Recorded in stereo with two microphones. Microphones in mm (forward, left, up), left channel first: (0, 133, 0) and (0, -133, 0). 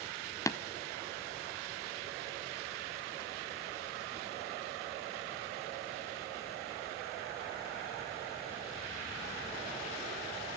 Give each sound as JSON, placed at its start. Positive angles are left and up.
{"t": 0.5, "sound": "tapping", "side_deg": 10, "distance_m": 0.8}